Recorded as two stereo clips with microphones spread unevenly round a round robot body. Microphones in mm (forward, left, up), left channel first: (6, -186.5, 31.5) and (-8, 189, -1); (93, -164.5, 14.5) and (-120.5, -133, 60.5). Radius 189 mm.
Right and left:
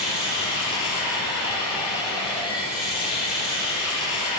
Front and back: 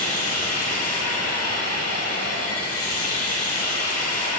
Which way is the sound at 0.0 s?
10° right.